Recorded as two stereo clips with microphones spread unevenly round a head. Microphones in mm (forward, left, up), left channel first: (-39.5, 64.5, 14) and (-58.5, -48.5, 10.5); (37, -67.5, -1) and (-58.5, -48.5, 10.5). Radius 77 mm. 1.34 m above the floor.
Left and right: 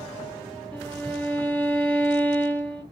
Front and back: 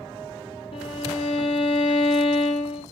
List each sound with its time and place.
0.7 s a violin: straight ahead, 0.5 m